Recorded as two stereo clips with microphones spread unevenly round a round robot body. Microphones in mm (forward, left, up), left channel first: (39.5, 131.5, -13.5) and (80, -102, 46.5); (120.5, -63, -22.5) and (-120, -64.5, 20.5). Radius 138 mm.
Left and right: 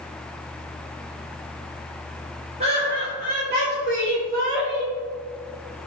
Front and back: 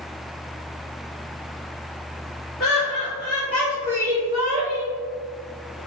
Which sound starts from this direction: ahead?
Laughter, at 2.6 s.